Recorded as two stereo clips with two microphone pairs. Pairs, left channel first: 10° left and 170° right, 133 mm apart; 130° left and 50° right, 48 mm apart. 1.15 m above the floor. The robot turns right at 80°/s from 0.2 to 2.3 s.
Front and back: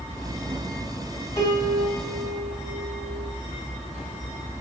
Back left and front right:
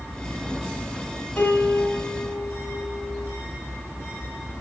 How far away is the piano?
About 4.5 m.